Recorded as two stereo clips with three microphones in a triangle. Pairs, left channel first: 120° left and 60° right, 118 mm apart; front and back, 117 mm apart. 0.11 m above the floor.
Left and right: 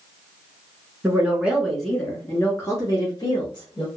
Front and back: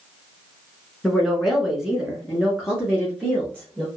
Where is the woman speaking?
85° right, 1.1 m; by 3.9 s 105° left, 1.6 m.